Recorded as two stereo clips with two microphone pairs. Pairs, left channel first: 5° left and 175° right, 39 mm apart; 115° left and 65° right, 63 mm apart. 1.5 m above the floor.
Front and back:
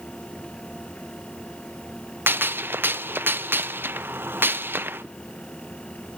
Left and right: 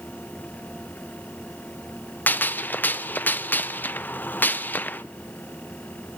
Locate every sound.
2.3 s a gunshot: 175° left, 0.6 m